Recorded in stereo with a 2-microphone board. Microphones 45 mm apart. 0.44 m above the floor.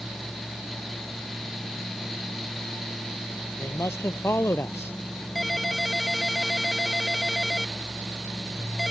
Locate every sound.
3.6 s a man speaking: 80° left
5.3 s a ringtone: 5° left (ahead or behind)